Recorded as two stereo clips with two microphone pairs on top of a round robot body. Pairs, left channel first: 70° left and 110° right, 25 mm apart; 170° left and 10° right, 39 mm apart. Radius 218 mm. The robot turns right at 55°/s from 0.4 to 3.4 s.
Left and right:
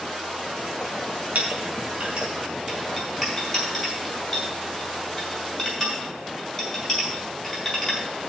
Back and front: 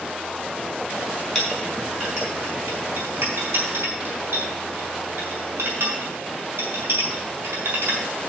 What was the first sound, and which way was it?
A clink, 105° right.